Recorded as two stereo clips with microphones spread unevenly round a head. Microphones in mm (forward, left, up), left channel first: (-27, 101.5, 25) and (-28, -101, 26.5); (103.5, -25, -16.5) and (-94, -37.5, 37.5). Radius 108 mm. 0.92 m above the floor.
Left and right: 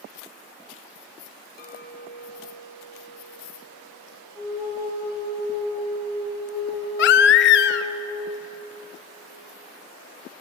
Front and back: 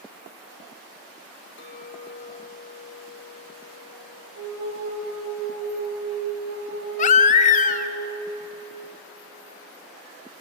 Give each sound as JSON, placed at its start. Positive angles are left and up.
{"t": 1.6, "sound": "a clink", "azimuth_deg": 40, "distance_m": 1.7}
{"t": 4.3, "sound": "a flute", "azimuth_deg": -165, "distance_m": 5.5}
{"t": 7.0, "sound": "a baby crying", "azimuth_deg": 65, "distance_m": 0.6}